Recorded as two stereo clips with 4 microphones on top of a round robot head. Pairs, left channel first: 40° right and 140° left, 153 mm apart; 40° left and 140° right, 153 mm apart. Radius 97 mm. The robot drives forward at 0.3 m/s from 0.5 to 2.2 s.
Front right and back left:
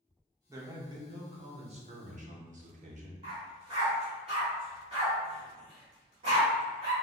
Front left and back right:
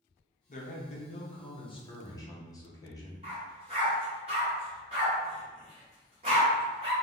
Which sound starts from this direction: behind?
A dog barking, at 3.2 s.